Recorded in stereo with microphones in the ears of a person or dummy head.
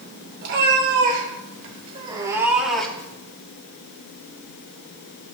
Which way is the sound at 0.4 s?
60° right (ahead or behind).